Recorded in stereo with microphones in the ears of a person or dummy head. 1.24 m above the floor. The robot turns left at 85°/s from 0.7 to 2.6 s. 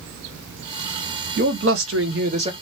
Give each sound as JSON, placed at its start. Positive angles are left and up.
{"t": 1.4, "sound": "a man speaking", "azimuth_deg": -55, "distance_m": 0.8}